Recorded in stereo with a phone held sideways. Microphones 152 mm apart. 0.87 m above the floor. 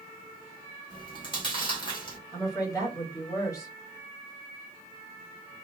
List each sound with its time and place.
0.9 s chewing: 30° left (ahead or behind), 1.7 m
2.3 s a woman speaking: 20° left (ahead or behind), 1.9 m